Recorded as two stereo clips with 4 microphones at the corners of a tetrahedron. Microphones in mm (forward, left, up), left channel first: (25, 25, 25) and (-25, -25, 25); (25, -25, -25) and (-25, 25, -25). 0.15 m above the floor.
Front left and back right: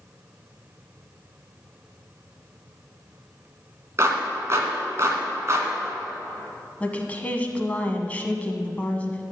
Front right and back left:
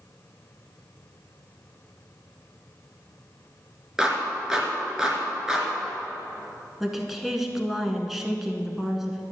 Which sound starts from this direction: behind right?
A clap, at 4.0 s.